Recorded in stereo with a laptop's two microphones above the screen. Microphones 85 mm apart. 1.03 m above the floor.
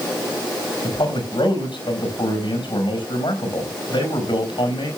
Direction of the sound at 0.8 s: 75° left (ahead or behind).